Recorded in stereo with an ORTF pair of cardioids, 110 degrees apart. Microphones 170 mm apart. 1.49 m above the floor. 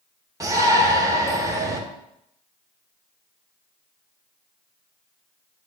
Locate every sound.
0.4 s a shout: 20° right, 1.5 m